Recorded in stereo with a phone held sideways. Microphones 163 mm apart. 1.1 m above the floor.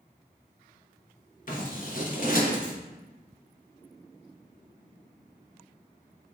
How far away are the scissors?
About 1.1 m.